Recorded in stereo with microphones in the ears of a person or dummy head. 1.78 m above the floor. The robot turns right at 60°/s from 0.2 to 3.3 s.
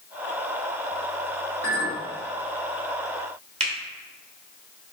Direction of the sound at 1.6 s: 60° left (ahead or behind).